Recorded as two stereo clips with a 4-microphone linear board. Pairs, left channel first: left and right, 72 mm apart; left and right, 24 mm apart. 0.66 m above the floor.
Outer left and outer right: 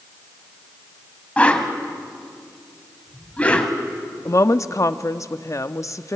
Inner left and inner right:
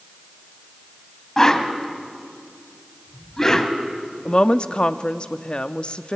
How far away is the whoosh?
About 1.7 m.